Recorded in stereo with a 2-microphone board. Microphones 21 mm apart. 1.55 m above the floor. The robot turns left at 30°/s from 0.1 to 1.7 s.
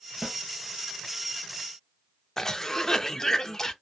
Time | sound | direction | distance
0.2 | a snare drum | 50° right (ahead or behind) | 1.2 m
2.4 | a cough | 25° left (ahead or behind) | 0.5 m